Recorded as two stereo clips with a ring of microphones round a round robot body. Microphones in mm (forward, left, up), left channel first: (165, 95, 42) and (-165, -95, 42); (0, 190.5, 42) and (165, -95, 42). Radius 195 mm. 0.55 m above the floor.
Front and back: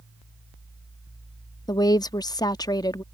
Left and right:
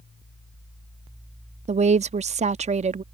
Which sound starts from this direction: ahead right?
A woman speaking, at 1.7 s.